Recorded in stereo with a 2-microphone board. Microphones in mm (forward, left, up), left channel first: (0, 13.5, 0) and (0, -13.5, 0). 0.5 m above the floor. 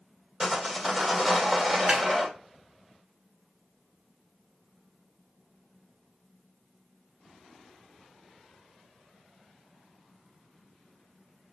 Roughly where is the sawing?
Centre.